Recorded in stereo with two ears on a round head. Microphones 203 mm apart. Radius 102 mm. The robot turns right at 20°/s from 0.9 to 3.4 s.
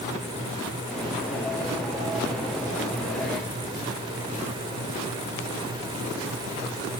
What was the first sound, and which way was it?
Only background noise.